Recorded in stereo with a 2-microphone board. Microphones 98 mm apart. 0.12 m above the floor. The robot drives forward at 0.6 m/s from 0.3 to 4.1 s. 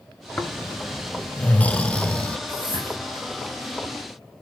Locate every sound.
0.4 s snoring: 15° left (ahead or behind), 0.8 m; by 2.4 s 10° left (ahead or behind), 1.0 m
2.5 s a whoosh: 55° left (ahead or behind), 8.5 m; by 3.0 s 60° left (ahead or behind), 8 m